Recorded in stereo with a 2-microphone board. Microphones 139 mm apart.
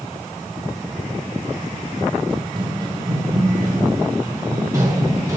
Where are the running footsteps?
35° right (ahead or behind), 1.6 m; by 5.4 s 25° right (ahead or behind), 4 m.